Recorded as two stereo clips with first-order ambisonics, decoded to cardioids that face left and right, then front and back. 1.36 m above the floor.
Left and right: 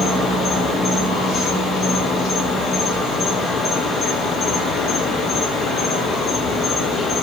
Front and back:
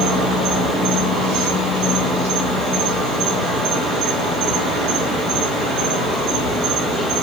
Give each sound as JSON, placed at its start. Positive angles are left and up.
{"t": 0.0, "sound": "an insect", "azimuth_deg": 140, "distance_m": 4.5}